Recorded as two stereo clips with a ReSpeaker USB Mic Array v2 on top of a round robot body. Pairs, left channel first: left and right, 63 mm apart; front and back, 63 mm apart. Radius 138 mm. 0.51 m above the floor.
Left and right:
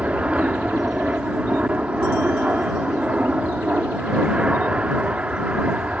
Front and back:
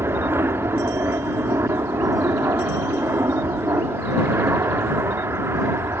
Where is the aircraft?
150° right.